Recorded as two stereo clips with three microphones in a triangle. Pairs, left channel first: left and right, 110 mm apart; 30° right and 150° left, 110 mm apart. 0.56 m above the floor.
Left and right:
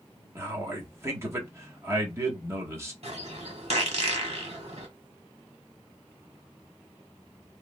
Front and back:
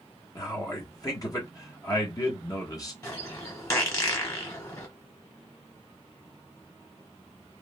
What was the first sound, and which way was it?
A man speaking, 45° right.